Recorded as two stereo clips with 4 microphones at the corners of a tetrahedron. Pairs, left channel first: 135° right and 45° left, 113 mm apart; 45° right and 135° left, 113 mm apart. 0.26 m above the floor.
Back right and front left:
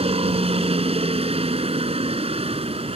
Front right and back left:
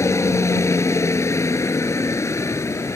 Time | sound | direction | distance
0.0 | a helicopter | 20° left | ?